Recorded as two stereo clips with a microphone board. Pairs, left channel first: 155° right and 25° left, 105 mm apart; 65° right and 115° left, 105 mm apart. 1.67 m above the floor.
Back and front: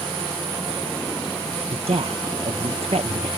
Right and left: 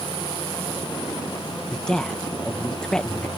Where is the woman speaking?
15° left.